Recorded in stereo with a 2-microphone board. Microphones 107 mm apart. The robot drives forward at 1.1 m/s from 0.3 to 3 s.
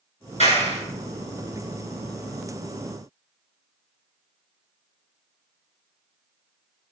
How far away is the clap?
About 4.5 m.